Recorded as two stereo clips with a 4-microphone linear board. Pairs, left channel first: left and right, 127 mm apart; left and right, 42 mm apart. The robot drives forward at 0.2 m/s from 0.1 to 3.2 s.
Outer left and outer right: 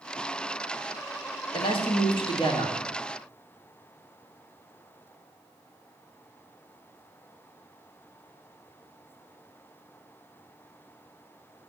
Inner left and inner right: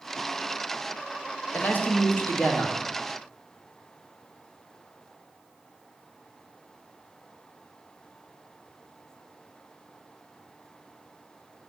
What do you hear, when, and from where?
1.5 s a man speaking: 45° left (ahead or behind), 1.9 m; by 2.9 s 40° left (ahead or behind), 2 m